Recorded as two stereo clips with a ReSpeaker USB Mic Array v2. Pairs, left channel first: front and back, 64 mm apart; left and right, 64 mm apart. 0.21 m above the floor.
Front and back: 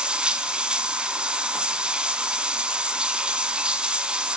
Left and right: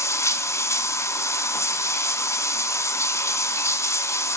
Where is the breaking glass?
No breaking glass in this recording.